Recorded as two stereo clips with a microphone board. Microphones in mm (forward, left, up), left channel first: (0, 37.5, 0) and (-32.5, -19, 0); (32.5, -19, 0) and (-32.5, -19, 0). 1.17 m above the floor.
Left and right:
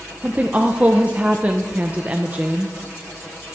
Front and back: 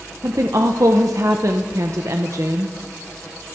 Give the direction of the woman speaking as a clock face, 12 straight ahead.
6 o'clock.